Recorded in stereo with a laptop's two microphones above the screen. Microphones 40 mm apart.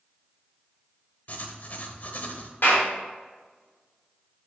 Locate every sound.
1.3 s writing: 45° left (ahead or behind), 1.0 m
2.6 s a clap: 60° left (ahead or behind), 3 m